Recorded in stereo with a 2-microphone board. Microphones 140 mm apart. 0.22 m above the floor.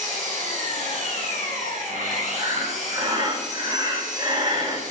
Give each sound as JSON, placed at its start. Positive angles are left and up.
{"t": 0.0, "sound": "an engine running", "side_deg": -70, "distance_m": 2.5}
{"t": 2.4, "sound": "breathing", "side_deg": -35, "distance_m": 1.3}